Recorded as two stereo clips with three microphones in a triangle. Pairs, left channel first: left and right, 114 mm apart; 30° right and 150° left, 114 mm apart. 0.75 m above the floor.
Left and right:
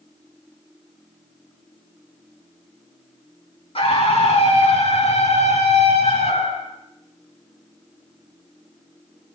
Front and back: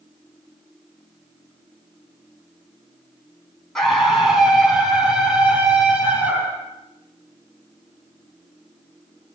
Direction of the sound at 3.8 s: 55° left.